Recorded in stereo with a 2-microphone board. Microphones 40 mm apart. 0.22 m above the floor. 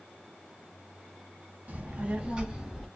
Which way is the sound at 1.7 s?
40° right (ahead or behind).